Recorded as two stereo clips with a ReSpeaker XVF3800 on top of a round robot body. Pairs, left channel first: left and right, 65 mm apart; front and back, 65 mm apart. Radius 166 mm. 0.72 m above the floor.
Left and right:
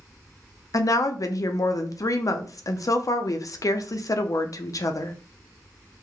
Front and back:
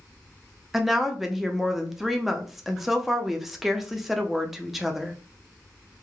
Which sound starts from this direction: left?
A woman speaking, at 0.7 s.